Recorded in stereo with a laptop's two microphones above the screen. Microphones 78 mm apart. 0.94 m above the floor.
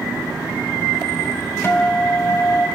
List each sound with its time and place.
1.6 s a guitar: 35° left (ahead or behind), 1.5 m